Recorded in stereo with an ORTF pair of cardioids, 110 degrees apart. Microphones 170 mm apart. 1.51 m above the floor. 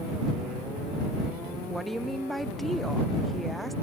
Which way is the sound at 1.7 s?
Straight ahead.